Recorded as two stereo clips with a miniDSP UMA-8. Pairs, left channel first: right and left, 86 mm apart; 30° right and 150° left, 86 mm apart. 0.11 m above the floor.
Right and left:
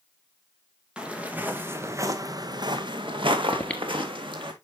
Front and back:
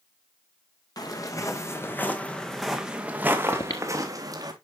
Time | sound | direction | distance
1.0 | footsteps | 10° left | 2.5 m
3.5 | breathing | 15° right | 1.6 m